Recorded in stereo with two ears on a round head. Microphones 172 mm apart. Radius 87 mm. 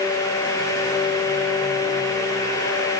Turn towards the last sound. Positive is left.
No sound to turn to.